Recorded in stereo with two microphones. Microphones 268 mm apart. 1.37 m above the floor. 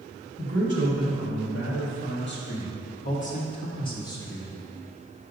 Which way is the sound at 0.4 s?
65° left (ahead or behind).